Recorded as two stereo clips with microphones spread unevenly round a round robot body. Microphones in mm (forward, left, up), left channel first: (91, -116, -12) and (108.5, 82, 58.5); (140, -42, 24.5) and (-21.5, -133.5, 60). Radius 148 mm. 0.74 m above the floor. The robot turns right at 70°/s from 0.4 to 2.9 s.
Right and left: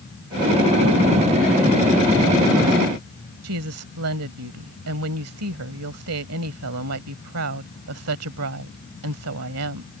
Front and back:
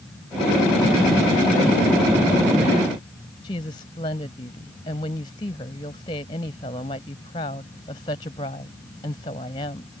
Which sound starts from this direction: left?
A woman speaking, at 3.4 s.